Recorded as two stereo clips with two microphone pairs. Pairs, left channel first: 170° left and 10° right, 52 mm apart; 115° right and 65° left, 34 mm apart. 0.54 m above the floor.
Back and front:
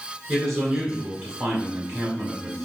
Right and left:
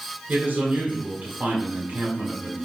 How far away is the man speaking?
About 2 m.